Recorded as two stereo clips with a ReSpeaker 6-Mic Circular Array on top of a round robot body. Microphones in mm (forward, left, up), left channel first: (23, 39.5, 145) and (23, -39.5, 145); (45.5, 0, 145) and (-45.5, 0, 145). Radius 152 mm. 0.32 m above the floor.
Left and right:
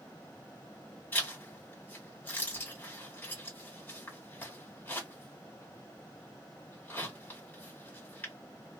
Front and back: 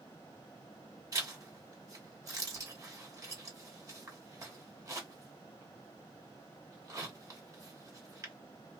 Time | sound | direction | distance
1.1 | a zipper | 145° left | 1.8 m